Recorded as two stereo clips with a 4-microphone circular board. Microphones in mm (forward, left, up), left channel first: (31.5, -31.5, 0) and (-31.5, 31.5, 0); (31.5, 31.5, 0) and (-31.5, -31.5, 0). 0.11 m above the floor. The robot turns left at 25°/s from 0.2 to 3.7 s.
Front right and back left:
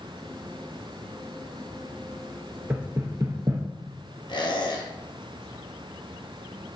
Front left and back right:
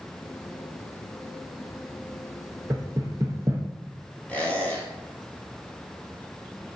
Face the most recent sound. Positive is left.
turn(degrees=-30)